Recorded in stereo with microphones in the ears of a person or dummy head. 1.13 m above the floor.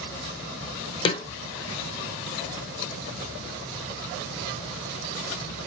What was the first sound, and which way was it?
A snare drum, 25° left (ahead or behind).